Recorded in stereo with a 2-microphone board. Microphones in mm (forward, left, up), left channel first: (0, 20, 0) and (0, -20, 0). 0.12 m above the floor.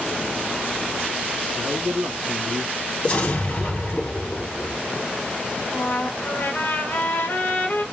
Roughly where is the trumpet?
Left.